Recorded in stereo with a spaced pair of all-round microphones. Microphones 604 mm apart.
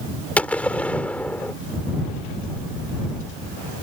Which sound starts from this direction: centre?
A gunshot, at 0.4 s.